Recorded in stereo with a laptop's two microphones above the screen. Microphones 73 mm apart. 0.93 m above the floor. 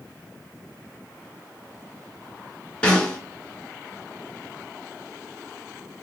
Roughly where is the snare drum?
Centre.